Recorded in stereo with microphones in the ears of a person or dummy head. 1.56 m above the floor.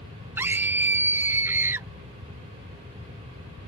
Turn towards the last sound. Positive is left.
turn(degrees=-15)  # may be behind; listen again after turning